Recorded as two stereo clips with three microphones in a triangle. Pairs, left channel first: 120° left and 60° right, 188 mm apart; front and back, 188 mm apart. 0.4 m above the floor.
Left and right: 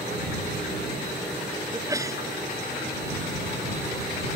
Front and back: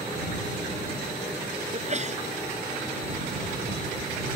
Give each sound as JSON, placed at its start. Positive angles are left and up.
{"t": 1.7, "sound": "a sneeze", "azimuth_deg": -130}